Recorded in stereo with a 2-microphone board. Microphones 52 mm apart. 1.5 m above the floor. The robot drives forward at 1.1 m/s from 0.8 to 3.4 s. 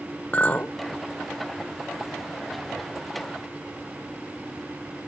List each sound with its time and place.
0.3 s a clink: 35° left (ahead or behind), 0.7 m